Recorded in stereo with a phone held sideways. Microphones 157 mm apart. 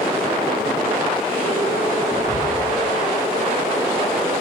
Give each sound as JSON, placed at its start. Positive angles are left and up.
{"t": 2.1, "sound": "whispering", "side_deg": -20, "distance_m": 1.4}